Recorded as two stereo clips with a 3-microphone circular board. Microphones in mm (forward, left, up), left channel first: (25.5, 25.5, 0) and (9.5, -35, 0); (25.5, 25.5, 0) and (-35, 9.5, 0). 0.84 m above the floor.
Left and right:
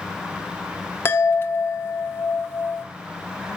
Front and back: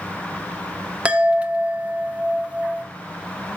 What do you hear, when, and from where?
1.1 s a chime: 125° left, 1.2 m